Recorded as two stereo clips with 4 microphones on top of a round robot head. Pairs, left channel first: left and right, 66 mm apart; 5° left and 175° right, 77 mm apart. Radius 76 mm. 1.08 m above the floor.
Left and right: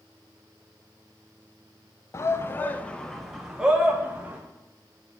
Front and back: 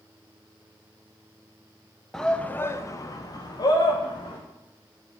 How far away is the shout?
About 1.0 m.